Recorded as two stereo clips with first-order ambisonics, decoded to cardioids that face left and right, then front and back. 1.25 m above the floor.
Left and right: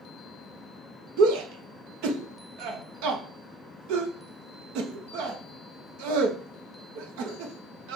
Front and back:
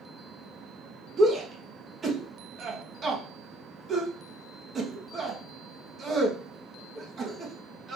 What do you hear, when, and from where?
1.2 s a shout: 110° right, 1.0 m